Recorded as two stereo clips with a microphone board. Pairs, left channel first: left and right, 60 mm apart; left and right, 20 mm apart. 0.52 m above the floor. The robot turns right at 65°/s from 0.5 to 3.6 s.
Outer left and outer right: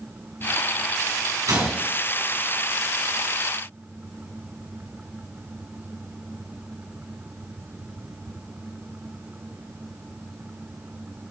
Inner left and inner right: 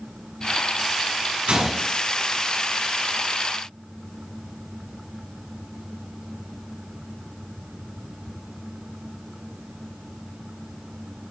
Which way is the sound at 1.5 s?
85° right.